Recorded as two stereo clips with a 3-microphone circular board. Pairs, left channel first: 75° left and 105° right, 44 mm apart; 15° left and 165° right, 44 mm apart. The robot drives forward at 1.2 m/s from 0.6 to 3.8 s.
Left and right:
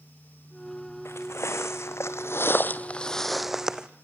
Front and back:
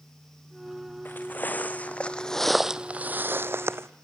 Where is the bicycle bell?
No bicycle bell in this recording.